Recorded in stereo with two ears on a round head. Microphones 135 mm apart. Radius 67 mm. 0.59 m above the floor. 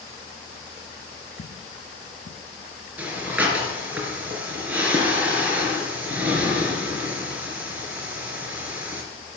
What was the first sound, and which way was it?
Footsteps, 60° left (ahead or behind).